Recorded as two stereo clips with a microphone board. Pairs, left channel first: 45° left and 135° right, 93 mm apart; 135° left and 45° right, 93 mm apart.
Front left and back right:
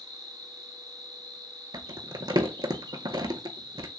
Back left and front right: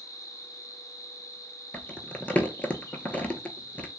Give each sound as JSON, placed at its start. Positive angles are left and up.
{"t": 0.0, "sound": "an insect", "azimuth_deg": -170, "distance_m": 0.9}
{"t": 1.7, "sound": "crumpling", "azimuth_deg": -155, "distance_m": 0.5}